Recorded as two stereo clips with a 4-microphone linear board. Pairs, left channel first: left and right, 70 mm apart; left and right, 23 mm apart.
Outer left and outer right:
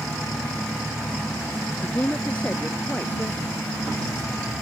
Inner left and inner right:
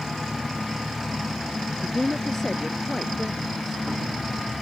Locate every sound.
1.8 s a woman speaking: 20° left (ahead or behind)